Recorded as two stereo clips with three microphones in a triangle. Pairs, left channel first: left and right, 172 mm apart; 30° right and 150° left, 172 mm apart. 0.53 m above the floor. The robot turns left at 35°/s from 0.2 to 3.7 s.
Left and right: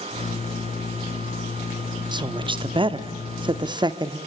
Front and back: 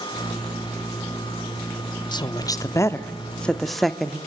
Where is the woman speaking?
60° right, 0.8 m; by 4.2 s 115° right, 0.8 m.